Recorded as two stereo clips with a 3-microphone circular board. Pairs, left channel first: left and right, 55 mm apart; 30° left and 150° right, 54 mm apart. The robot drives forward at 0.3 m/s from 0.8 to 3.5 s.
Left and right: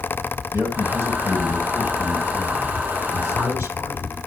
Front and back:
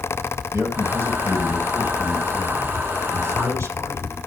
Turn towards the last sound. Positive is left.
turn(degrees=-120)